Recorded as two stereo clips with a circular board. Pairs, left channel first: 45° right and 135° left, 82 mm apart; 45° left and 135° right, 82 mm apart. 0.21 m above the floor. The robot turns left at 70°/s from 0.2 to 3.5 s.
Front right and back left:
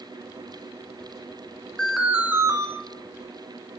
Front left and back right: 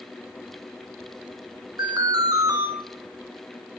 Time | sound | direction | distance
1.8 | an alarm | 120° right | 1.5 m